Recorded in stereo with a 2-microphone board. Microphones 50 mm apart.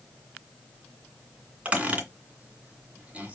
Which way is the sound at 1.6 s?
25° right (ahead or behind).